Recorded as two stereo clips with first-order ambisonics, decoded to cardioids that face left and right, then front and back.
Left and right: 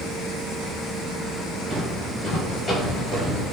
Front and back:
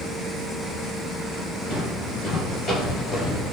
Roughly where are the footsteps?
Ahead.